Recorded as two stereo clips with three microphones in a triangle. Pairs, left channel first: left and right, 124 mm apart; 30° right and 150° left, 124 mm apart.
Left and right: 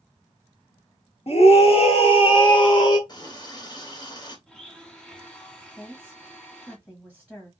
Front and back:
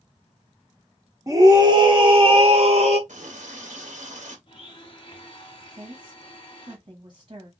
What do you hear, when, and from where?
1.3 s a scream: 95° left, 1.5 m; by 3.0 s 140° left, 2.0 m
3.1 s a running tap: 145° left, 1.3 m
4.5 s a blender: 5° left, 1.2 m
5.8 s a woman speaking: 170° left, 1.1 m